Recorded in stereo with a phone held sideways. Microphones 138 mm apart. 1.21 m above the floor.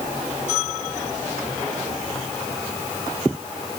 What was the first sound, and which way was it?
Only background noise.